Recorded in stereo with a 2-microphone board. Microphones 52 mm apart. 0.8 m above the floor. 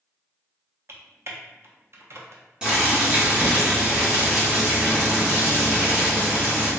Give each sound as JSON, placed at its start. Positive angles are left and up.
{"t": 0.9, "sound": "typing on a keyboard", "side_deg": -55, "distance_m": 0.5}
{"t": 2.6, "sound": "boiling", "side_deg": -20, "distance_m": 1.2}